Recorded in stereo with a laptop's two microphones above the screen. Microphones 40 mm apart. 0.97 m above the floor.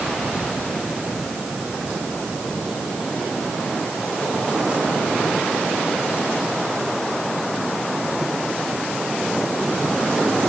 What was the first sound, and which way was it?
Only background noise.